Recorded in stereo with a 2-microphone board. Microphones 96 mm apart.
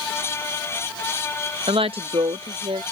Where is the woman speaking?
70° right (ahead or behind); by 2.8 s 85° right.